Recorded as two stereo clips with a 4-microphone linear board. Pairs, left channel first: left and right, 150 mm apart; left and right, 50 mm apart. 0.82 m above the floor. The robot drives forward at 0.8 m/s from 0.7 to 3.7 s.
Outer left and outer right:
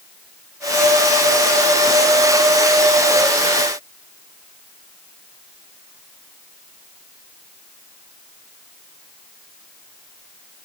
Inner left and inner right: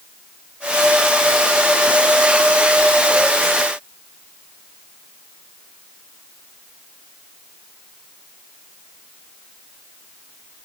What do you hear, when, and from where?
Only background noise.